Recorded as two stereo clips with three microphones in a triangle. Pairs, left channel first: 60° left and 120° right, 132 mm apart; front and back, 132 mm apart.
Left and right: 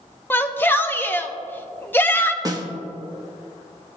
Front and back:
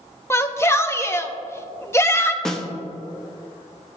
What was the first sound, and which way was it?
A shout, 15° left.